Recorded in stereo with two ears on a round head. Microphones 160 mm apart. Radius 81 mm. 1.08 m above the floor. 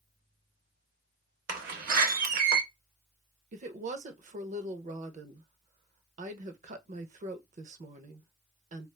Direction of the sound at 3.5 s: 45° right (ahead or behind).